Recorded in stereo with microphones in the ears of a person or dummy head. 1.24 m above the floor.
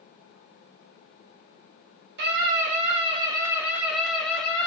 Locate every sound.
2.2 s a scream: 60° right (ahead or behind), 1.1 m; by 4.7 s 5° left (ahead or behind), 1.8 m